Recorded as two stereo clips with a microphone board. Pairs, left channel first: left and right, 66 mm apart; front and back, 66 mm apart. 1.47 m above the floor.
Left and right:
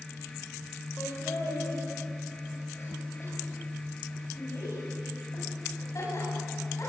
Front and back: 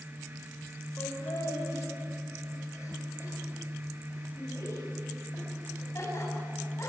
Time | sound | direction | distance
1.0 | laughter | 40° left | 5.5 m